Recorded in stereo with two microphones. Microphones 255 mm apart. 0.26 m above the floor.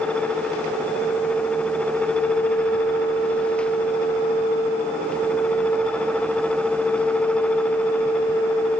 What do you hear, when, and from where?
Only background noise.